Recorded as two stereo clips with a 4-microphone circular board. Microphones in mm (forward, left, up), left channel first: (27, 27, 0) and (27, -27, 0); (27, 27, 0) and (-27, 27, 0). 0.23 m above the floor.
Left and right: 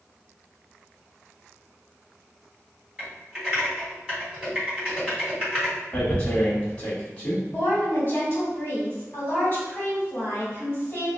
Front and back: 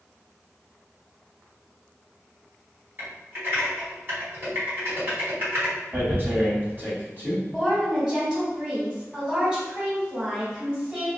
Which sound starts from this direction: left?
A woman speaking, at 7.5 s.